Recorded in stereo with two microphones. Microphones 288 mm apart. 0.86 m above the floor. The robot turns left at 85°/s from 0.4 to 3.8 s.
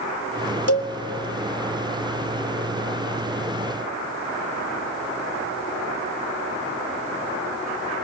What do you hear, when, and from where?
0.7 s a cowbell: 55° left (ahead or behind), 0.9 m; by 0.9 s 45° left (ahead or behind), 0.9 m